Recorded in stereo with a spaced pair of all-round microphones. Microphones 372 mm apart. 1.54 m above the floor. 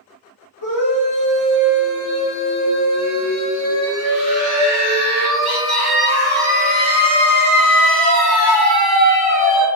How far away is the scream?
About 1.9 m.